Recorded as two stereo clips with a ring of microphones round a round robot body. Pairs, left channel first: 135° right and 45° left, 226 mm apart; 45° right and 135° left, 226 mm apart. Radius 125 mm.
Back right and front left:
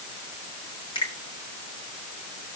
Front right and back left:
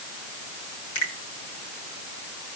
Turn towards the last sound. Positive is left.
turn(degrees=-60)